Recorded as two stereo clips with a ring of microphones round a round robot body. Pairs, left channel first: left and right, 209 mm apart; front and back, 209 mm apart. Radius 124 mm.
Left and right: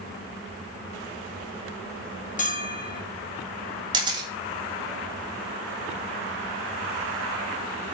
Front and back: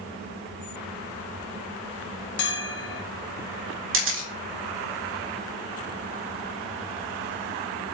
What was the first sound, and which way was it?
A bell, 35° left.